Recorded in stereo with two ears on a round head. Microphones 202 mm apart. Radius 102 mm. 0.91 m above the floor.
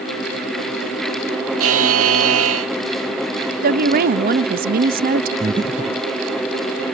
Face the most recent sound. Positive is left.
turn(degrees=-20)  # may be behind; listen again after turning